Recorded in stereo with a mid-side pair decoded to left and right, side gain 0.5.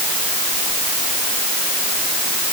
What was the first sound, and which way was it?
Only background noise.